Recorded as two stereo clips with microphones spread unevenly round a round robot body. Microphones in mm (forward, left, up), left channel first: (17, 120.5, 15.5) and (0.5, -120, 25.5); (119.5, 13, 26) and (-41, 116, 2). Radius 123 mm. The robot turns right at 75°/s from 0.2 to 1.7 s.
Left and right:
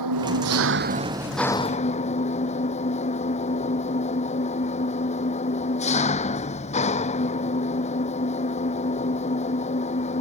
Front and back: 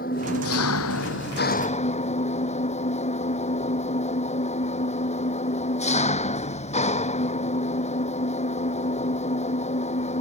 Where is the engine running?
90° right; by 10.2 s 20° left.